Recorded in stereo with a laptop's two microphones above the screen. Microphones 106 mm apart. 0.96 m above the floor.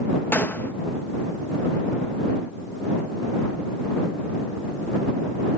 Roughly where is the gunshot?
Centre.